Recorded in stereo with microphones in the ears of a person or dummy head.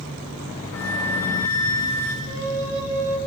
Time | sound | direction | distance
0.7 | a flute | 10° left (ahead or behind) | 5.5 m
2.2 | a flute | 60° right (ahead or behind) | 5.5 m